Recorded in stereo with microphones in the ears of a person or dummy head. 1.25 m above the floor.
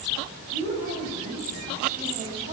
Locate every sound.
0.5 s a woman speaking: 40° right (ahead or behind), 6 m